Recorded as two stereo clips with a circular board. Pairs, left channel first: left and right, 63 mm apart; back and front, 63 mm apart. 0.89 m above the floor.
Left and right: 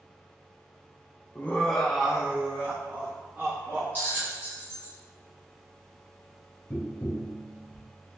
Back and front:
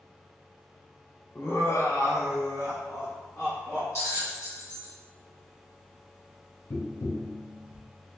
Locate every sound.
1.4 s laughter: 140° left, 0.6 m; by 3.9 s 140° right, 1.7 m
4.0 s a bell: 145° right, 1.8 m
6.7 s tapping: 155° left, 0.5 m